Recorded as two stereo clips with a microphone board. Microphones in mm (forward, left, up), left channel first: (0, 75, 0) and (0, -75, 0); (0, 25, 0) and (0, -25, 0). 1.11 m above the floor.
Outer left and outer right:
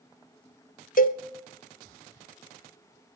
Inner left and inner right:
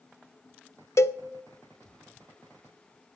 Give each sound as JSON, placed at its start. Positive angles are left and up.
{"t": 1.0, "sound": "a cowbell", "side_deg": 65, "distance_m": 0.6}